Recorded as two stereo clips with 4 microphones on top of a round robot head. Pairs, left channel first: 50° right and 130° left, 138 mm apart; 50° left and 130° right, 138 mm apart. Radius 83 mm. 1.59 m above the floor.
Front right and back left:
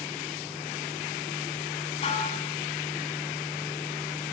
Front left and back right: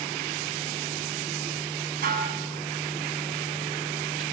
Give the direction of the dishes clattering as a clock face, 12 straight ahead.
3 o'clock.